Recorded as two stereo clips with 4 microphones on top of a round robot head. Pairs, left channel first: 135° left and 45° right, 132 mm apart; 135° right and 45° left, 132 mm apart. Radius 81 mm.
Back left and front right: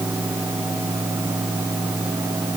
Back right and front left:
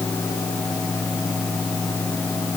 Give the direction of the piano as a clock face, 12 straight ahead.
No piano in this recording.